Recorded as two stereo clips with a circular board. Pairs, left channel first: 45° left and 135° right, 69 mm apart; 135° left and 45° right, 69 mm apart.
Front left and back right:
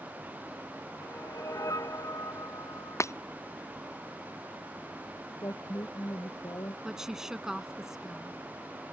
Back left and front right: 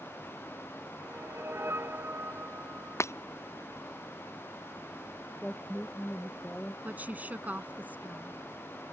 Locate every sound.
1.0 s a whoosh: 10° left
3.0 s breaking glass: 90° left
5.4 s a woman speaking: 65° left
6.8 s a woman speaking: 60° right